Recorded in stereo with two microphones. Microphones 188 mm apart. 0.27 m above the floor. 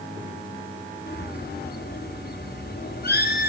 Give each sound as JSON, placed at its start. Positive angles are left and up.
{"t": 1.1, "sound": "a bird", "side_deg": 55, "distance_m": 2.5}